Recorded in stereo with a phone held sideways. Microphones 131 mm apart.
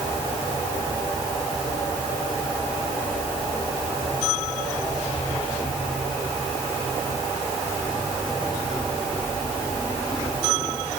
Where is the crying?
No crying in this recording.